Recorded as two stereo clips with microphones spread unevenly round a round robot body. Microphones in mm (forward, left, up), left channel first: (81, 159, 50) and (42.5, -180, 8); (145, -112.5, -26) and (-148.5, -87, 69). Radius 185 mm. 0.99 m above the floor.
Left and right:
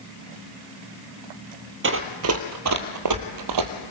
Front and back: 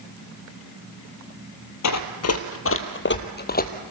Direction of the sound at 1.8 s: 40° right.